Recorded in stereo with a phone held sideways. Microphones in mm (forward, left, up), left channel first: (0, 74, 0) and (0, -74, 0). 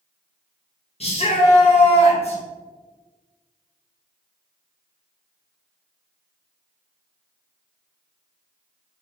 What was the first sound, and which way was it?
A shout, 40° left (ahead or behind).